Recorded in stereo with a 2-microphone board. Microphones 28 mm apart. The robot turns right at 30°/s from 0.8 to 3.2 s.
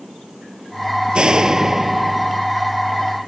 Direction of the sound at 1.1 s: 35° right.